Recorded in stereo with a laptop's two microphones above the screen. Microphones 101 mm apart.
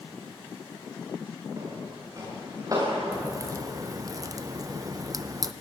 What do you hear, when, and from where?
1.6 s footsteps: 35° right (ahead or behind), 7.5 m
3.1 s a crack: 35° right (ahead or behind), 0.7 m